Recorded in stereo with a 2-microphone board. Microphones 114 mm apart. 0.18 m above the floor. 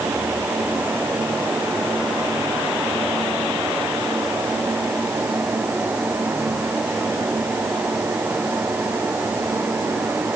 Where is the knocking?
I don't hear knocking.